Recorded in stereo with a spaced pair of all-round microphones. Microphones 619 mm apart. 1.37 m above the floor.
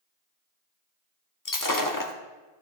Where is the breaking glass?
30° left (ahead or behind), 1.0 m.